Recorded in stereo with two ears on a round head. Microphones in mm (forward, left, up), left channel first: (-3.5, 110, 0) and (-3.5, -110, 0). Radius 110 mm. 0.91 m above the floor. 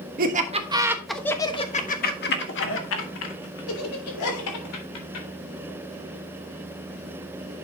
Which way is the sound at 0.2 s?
35° right (ahead or behind).